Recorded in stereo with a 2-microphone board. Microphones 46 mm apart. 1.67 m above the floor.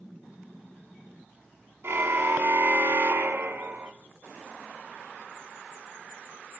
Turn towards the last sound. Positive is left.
turn(degrees=-45)  # may be behind; listen again after turning